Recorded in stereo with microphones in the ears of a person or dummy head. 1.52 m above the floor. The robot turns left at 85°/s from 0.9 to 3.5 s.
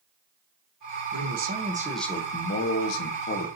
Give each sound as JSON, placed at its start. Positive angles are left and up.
{"t": 1.1, "sound": "a man speaking", "azimuth_deg": -110, "distance_m": 1.2}